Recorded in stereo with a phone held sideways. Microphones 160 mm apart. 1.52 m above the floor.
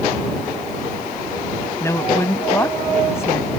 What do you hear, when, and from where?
1.8 s a woman speaking: 15° left (ahead or behind)